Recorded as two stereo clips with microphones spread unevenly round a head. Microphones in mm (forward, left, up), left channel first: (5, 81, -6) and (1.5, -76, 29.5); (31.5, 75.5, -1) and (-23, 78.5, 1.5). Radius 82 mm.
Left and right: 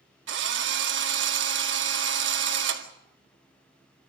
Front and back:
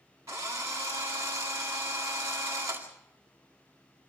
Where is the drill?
110° right, 2 m.